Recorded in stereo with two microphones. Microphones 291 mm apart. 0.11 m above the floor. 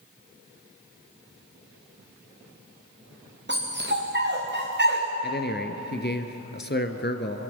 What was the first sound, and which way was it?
A dog barking, 40° right (ahead or behind).